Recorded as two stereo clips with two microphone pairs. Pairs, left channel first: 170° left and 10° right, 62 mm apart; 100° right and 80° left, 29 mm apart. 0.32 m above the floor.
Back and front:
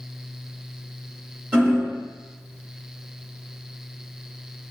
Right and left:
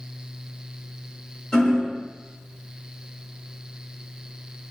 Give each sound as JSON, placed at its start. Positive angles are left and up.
{"t": 1.5, "sound": "hammering", "azimuth_deg": -65, "distance_m": 1.6}